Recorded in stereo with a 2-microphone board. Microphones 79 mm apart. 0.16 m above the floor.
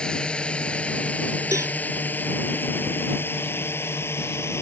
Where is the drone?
15° left (ahead or behind); by 4.6 s 35° left (ahead or behind).